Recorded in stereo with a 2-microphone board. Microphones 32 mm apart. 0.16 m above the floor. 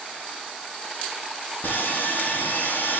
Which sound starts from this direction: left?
Sawing, at 1.6 s.